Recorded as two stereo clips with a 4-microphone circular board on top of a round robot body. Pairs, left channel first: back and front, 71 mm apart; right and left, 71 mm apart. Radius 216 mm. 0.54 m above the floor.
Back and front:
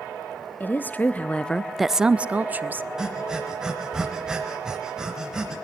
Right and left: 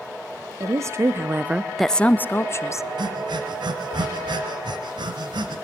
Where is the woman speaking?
125° left, 1.1 m; by 2.9 s 55° right, 1.0 m.